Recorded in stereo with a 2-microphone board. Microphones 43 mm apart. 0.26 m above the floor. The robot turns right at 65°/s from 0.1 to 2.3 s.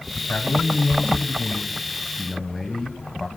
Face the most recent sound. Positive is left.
turn(degrees=-170)